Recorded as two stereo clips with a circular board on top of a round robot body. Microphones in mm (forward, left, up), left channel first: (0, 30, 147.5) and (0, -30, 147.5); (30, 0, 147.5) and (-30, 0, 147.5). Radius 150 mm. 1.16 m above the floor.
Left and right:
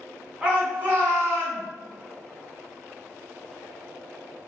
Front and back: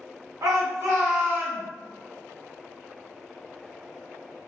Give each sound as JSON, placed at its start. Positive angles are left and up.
{"t": 0.4, "sound": "a shout", "azimuth_deg": -160, "distance_m": 1.0}